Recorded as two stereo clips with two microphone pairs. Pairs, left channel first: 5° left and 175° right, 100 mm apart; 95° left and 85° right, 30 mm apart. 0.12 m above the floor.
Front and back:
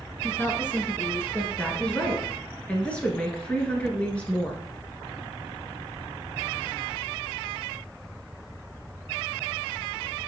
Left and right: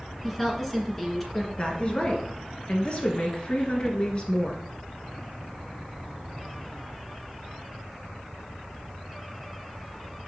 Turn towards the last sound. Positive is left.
turn(degrees=75)